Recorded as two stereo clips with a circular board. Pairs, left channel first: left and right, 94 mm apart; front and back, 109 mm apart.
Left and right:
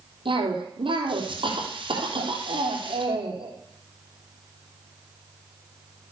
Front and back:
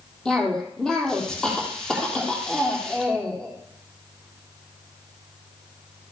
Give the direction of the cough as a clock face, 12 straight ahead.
3 o'clock.